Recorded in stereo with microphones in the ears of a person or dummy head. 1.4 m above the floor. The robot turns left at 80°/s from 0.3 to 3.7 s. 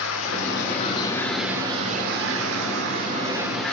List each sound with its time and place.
0.0 s running water: 85° left, 3 m; by 3.7 s 175° left, 3 m